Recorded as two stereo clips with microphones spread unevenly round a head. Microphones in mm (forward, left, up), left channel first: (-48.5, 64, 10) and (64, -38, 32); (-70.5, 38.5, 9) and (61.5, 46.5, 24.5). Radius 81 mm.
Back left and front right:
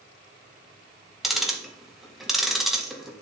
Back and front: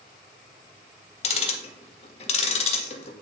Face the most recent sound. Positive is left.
turn(degrees=-135)